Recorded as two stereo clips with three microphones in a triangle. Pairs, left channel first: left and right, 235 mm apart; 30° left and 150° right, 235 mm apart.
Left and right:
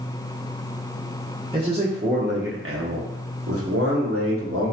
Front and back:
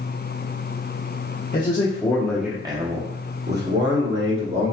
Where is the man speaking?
25° right, 0.8 m; by 4.7 s 120° right, 1.5 m.